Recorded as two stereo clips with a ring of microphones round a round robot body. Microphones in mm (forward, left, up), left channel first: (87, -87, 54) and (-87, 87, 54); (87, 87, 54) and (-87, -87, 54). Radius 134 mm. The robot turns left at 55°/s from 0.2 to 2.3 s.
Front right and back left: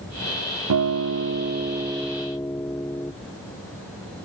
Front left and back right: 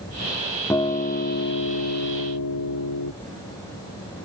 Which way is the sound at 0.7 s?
125° left.